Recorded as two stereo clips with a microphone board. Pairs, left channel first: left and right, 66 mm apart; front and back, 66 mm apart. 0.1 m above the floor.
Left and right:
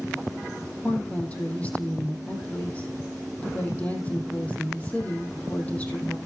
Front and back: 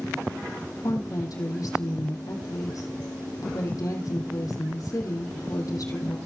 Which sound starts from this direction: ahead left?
A woman speaking, at 0.8 s.